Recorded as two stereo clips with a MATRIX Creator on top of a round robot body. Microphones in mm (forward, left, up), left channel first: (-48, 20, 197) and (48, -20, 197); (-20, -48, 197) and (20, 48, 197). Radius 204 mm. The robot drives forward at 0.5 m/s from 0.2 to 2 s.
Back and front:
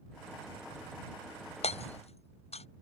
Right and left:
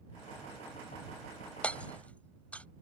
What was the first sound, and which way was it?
Hammering, 170° left.